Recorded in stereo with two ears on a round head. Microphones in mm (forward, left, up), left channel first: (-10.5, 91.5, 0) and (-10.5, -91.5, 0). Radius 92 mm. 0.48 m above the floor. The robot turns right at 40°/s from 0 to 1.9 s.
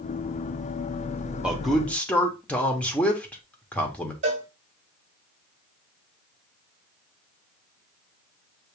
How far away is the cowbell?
About 1.7 m.